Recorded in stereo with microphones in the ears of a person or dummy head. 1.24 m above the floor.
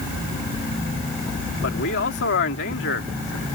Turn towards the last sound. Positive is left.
turn(degrees=55)  # may be behind; listen again after turning